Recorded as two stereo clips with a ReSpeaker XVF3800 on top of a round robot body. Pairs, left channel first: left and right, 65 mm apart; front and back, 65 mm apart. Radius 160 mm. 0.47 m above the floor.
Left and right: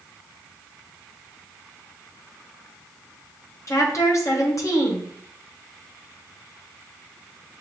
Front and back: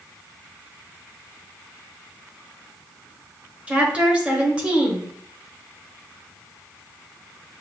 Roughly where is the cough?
No cough in this recording.